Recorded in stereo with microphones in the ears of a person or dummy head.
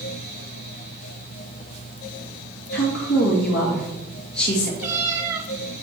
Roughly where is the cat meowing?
Centre.